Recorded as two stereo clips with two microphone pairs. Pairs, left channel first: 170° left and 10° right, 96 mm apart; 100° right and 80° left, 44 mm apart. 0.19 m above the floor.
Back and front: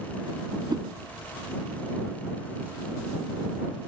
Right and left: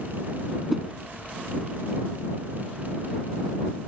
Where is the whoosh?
Straight ahead.